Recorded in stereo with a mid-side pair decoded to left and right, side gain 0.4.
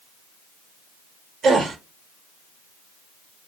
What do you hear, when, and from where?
1.4 s a gasp: 65° right, 0.9 m